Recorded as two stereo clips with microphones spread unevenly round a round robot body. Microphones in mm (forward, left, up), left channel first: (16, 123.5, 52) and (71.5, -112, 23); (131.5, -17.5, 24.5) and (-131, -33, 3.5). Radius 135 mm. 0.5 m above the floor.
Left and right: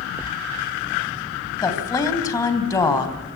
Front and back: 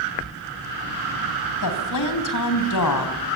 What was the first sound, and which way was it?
A woman speaking, 25° left.